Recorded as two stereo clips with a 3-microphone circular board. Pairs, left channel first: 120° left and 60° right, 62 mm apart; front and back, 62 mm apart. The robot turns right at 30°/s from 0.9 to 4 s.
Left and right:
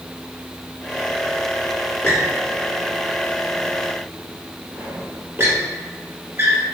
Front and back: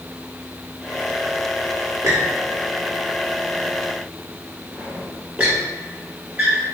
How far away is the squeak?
About 1.0 m.